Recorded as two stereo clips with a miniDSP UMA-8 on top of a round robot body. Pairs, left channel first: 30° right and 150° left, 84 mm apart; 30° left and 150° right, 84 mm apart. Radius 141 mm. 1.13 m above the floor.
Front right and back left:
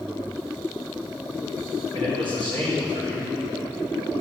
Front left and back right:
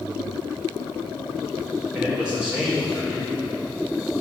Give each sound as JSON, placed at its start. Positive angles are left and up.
{"t": 1.9, "sound": "a man speaking", "azimuth_deg": 130, "distance_m": 5.0}